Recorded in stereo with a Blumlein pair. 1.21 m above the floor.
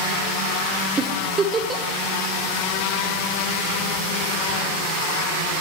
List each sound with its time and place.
1.0 s a giggle: 20° right, 1.1 m